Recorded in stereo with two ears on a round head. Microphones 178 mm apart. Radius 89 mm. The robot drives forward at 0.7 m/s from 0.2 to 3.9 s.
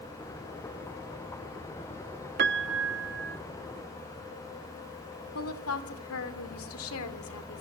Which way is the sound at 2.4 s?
55° right (ahead or behind).